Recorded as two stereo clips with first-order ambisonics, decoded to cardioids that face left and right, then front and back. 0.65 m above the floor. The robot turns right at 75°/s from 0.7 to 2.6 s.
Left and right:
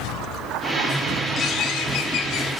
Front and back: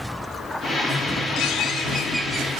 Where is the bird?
30° left, 0.6 m; by 2.5 s 115° left, 0.6 m.